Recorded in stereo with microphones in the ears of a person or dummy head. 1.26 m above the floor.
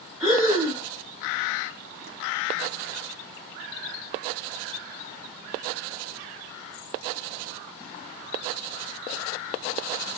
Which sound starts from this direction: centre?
Breathing, at 0.2 s.